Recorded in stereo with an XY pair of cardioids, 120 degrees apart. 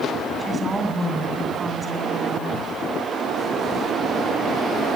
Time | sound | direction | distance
0.4 | a woman speaking | 20° right | 8 m